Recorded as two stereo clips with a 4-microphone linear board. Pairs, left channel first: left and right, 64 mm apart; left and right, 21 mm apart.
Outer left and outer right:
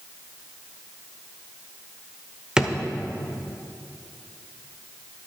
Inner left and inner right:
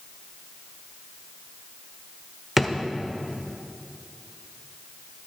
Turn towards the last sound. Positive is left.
turn(degrees=-10)  # may be behind; listen again after turning